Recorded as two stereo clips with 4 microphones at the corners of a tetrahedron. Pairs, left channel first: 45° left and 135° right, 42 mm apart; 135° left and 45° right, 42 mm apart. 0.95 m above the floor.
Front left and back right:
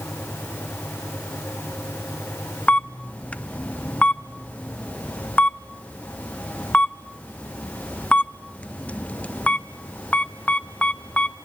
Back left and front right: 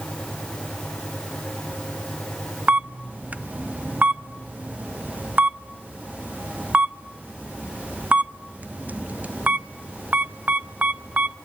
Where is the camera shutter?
5° right, 0.5 m.